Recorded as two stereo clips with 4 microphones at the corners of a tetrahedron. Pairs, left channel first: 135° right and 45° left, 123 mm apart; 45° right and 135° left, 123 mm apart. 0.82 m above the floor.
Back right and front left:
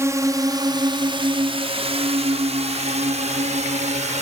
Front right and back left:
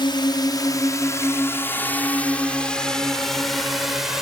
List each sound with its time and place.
0.0 s a drone: 15° right; by 4.2 s 50° left